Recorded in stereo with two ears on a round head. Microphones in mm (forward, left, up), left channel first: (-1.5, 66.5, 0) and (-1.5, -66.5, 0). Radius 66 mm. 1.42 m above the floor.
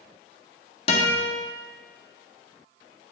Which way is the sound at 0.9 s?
40° left (ahead or behind).